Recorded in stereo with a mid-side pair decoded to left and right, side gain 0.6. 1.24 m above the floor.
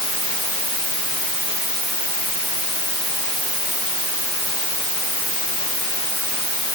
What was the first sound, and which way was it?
Only background noise.